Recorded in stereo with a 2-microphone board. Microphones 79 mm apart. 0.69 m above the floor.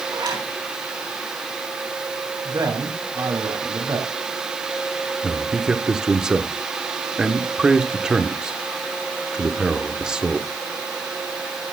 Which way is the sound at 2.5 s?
60° right (ahead or behind).